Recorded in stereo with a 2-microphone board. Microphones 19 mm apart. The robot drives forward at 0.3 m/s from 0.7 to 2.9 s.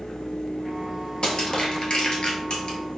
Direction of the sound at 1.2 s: 50° left (ahead or behind).